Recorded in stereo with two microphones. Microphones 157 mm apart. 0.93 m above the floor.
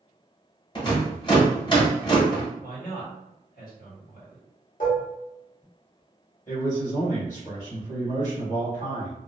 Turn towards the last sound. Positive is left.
turn(degrees=50)  # may be behind; listen again after turning